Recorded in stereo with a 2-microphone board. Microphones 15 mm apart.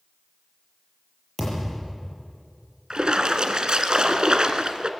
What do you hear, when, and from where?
1.4 s a thud: 15° left (ahead or behind), 6.5 m
2.9 s a splash: 60° right (ahead or behind), 1.3 m